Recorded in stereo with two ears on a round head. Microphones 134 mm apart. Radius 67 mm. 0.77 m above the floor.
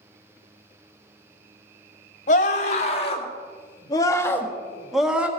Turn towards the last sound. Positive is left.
turn(degrees=-10)  # may be behind; listen again after turning